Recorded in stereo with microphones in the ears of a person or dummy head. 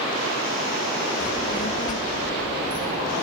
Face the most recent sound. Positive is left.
turn(degrees=20)  # may be behind; listen again after turning